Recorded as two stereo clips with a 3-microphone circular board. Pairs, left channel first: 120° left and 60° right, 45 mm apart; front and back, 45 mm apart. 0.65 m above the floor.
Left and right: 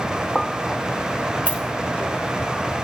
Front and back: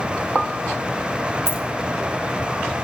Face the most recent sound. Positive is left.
turn(degrees=-10)